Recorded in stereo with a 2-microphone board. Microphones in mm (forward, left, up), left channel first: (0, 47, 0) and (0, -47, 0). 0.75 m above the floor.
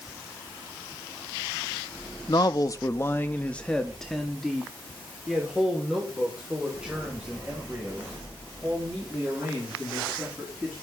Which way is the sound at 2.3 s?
45° left (ahead or behind).